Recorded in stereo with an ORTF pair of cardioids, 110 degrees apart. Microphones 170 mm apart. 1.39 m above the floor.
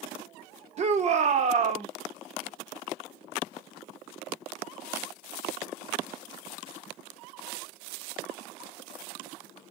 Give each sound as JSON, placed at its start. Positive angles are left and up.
{"t": 0.8, "sound": "a shout", "azimuth_deg": -40, "distance_m": 1.4}